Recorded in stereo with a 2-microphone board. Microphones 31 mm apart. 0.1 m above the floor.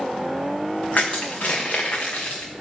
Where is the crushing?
55° left (ahead or behind), 1.8 m.